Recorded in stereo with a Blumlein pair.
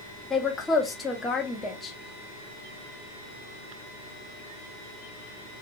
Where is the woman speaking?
15° left, 0.8 m.